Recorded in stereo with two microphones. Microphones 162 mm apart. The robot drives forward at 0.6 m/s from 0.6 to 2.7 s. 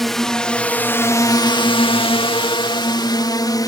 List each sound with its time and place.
0.0 s a drone: centre (ahead or behind); by 3.7 s 25° left (ahead or behind)